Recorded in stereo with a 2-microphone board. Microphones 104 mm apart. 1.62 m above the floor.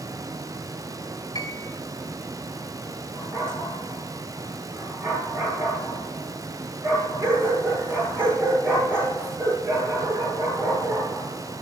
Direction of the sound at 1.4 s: 40° left (ahead or behind).